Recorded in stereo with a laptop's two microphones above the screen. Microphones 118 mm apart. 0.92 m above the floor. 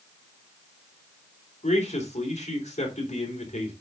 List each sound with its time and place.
1.6 s a man speaking: 75° left (ahead or behind), 3.5 m